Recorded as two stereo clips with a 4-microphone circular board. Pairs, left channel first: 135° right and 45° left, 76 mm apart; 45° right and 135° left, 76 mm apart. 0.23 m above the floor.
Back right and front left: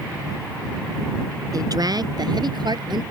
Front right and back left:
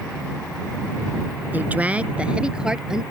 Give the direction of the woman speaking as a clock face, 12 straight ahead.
10 o'clock.